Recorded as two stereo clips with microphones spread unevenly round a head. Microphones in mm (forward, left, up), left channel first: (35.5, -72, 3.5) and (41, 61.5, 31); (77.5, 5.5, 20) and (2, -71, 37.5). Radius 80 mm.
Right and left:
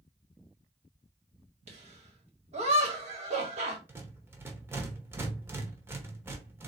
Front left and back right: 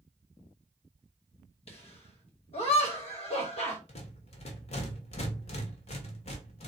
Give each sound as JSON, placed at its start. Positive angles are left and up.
{"t": 1.7, "sound": "laughter", "azimuth_deg": 45, "distance_m": 1.8}
{"t": 3.9, "sound": "a rattle", "azimuth_deg": 25, "distance_m": 1.1}